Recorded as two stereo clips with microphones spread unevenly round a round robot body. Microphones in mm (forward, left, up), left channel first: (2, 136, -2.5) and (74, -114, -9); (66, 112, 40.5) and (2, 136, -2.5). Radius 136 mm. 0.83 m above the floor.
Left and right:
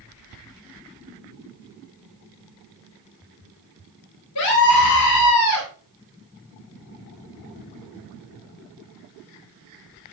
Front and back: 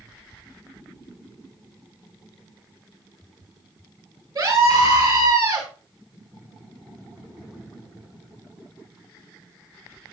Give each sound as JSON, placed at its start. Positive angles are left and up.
{"t": 4.3, "sound": "a scream", "azimuth_deg": 140, "distance_m": 10.0}